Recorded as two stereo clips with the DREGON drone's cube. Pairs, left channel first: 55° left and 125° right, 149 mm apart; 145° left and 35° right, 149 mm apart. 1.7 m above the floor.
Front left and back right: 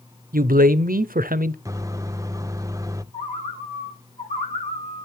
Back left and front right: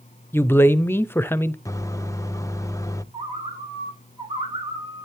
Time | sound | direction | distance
0.3 | a man speaking | 140° right | 0.5 m
1.6 | a microwave | 170° right | 0.5 m
3.1 | a bird | 20° left | 2 m